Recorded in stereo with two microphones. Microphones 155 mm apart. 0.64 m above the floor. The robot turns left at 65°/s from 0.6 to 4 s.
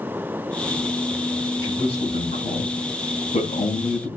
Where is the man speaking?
20° left (ahead or behind), 6 m; by 4.1 s 5° left (ahead or behind), 6 m.